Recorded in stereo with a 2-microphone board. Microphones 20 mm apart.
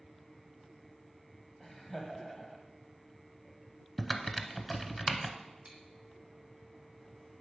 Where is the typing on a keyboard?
5° right (ahead or behind), 0.6 m.